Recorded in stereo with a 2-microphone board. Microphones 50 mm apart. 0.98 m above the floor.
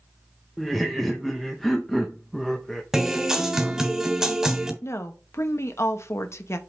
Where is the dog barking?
I don't hear a dog barking.